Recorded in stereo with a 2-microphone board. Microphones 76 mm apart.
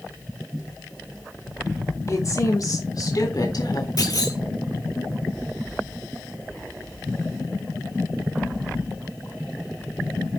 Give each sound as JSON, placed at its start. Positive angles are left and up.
{"t": 2.1, "sound": "a woman speaking", "side_deg": 45, "distance_m": 3.5}
{"t": 4.0, "sound": "a clunk", "side_deg": 55, "distance_m": 5.0}